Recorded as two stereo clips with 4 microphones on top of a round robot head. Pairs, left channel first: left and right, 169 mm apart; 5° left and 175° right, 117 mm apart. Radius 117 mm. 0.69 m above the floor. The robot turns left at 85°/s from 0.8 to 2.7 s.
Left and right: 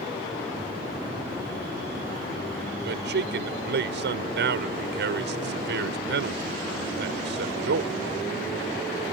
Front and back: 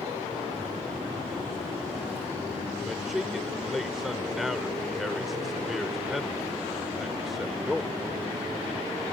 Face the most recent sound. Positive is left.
turn(degrees=-85)